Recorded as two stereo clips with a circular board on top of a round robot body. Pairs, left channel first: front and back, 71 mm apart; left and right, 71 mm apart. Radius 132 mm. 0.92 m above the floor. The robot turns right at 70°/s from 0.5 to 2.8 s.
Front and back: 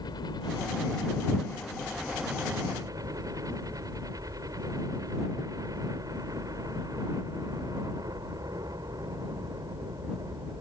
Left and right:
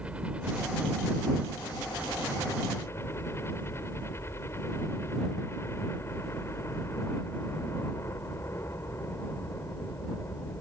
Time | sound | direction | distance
0.0 | a helicopter | 15° right | ?